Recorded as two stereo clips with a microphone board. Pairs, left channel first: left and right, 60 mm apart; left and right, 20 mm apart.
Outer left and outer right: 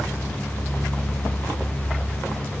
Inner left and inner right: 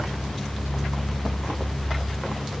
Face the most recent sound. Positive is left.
No sound to turn to.